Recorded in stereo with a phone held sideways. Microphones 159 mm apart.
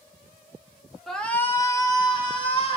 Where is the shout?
Centre (ahead or behind), 0.9 m; by 2.8 s 35° left (ahead or behind), 1.7 m.